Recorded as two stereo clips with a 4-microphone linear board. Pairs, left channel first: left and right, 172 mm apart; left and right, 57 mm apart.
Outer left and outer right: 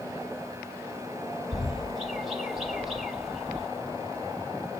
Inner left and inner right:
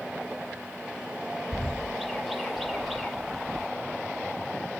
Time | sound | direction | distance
1.5 | a bird | centre (ahead or behind) | 0.9 m